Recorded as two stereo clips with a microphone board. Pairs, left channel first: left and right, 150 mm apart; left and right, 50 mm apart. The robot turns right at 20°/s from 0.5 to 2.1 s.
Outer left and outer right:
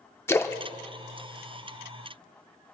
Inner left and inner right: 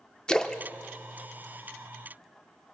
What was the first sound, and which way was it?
A splash, 15° left (ahead or behind).